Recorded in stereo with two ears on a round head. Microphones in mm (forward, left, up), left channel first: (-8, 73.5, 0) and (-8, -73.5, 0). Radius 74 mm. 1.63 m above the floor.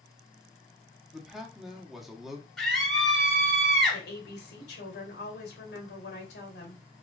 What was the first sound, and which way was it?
A man speaking, 5° right (ahead or behind).